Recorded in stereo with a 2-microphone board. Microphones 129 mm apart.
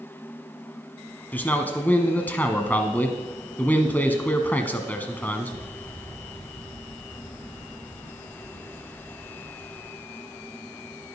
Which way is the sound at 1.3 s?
15° left (ahead or behind).